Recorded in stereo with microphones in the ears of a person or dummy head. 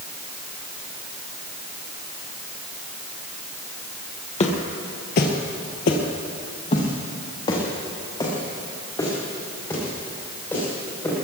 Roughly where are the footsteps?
Left.